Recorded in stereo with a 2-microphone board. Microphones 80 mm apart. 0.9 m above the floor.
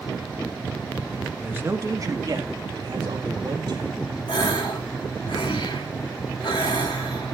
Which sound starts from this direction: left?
A gasp, at 4.3 s.